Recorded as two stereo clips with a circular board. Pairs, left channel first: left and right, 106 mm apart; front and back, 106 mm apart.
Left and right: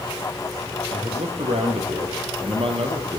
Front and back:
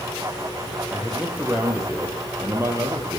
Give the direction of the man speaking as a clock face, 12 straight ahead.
3 o'clock.